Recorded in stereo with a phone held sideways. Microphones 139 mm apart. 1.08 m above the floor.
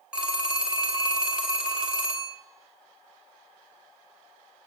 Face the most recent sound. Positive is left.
turn(degrees=-5)  # may be behind; listen again after turning